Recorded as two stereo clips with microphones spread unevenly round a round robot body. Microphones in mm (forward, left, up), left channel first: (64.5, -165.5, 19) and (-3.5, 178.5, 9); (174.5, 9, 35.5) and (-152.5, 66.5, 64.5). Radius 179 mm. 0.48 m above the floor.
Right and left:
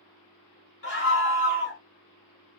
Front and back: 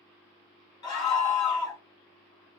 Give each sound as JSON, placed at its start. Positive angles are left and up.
{"t": 0.8, "sound": "a scream", "azimuth_deg": -25, "distance_m": 2.0}